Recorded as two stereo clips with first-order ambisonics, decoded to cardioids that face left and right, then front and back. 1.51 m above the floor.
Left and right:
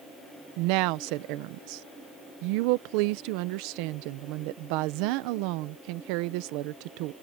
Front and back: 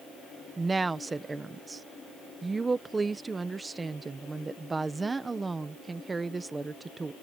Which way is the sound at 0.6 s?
100° right.